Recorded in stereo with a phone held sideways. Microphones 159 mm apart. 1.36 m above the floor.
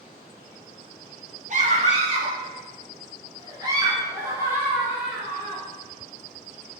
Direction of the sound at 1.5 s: 50° right (ahead or behind).